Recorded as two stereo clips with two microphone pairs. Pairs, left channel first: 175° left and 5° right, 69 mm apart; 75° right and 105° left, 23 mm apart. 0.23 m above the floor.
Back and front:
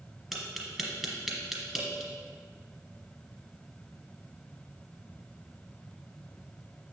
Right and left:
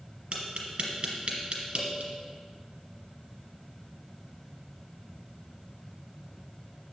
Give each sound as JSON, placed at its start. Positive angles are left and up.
{"t": 0.3, "sound": "tapping", "azimuth_deg": 75, "distance_m": 1.9}